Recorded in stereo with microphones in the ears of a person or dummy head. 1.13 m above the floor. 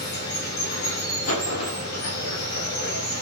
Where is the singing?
No singing in this recording.